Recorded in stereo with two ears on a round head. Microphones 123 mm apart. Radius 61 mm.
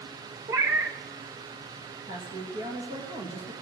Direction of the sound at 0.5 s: 20° right (ahead or behind).